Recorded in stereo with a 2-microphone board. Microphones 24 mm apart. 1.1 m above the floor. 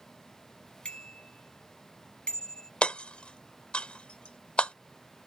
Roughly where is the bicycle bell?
Left.